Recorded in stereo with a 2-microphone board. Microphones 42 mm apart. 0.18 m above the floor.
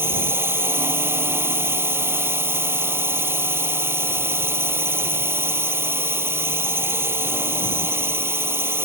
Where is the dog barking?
I don't hear a dog barking.